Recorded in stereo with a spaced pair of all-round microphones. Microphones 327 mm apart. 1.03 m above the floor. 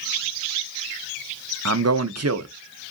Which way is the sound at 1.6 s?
50° right (ahead or behind).